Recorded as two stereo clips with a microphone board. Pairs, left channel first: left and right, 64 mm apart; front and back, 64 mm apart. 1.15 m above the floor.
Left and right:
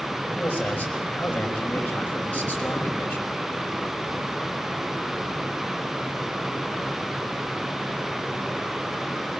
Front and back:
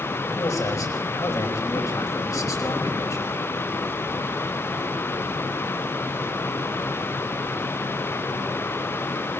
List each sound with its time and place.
0.4 s a man speaking: 25° left, 5.5 m